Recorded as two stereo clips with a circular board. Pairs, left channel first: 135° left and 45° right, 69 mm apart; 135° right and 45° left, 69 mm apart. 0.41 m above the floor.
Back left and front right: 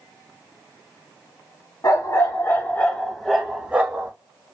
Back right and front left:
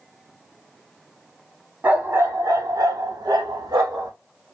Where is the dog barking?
105° left, 1.0 m; by 4.1 s 20° left, 1.2 m.